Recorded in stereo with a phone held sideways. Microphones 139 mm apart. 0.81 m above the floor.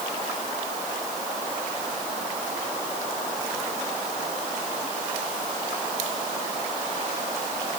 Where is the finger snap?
No finger snap in this recording.